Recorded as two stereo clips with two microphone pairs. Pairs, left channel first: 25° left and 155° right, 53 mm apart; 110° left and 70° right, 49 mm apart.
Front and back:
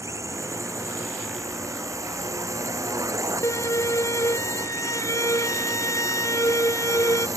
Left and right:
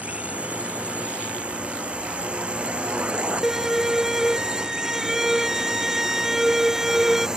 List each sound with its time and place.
0.0 s a drone: 130° right; by 7.4 s 145° right
3.4 s a violin: 15° left